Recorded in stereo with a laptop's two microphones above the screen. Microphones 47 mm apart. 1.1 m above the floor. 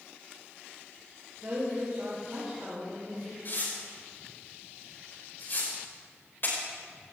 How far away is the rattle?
No rattle in this recording.